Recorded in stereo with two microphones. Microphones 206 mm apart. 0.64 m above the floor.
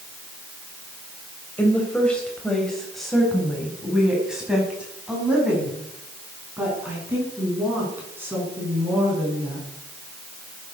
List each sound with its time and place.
1.6 s a woman speaking: 10° left (ahead or behind), 3 m; by 9.7 s 10° right (ahead or behind), 7.5 m